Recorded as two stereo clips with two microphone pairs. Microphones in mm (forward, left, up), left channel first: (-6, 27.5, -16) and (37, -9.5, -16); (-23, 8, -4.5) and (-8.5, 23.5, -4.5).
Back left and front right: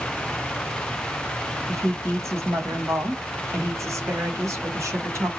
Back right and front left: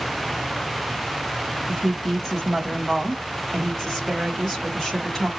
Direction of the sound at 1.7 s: 45° right.